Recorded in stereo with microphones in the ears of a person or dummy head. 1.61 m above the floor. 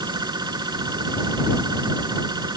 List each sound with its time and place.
0.0 s a machine running: 20° right (ahead or behind)